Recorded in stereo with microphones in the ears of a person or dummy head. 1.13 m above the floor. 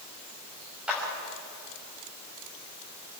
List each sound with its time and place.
0.9 s a clap: 10° right (ahead or behind), 6 m